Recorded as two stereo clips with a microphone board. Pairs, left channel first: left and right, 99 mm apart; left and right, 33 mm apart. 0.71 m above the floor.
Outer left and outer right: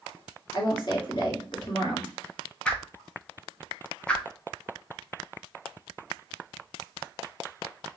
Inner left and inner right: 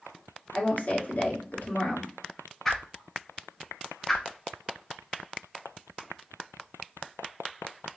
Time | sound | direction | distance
0.5 | a woman speaking | 50° left (ahead or behind) | 1.6 m
2.6 | a whoosh | 15° left (ahead or behind) | 0.9 m